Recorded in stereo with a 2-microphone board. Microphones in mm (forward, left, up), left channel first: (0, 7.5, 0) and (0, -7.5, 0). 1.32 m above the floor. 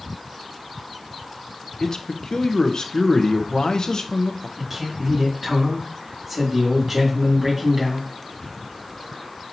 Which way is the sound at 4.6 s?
10° right (ahead or behind).